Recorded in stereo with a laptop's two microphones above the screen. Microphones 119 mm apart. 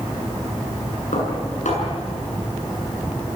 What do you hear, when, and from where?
1.1 s dishes clattering: 85° left, 8 m